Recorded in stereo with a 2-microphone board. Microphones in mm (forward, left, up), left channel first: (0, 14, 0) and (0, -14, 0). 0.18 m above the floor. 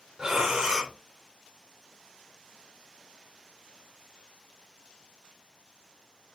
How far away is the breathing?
About 1.2 m.